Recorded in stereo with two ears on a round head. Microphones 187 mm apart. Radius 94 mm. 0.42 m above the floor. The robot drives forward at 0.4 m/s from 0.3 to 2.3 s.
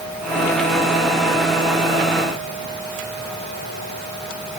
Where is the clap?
I don't hear a clap.